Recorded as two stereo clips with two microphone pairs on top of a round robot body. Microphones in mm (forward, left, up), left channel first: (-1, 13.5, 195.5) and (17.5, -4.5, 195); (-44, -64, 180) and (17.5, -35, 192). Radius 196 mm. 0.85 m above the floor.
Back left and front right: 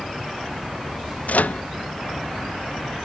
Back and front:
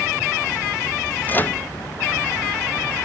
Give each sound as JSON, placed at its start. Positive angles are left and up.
{"t": 1.3, "sound": "a microwave", "azimuth_deg": 150}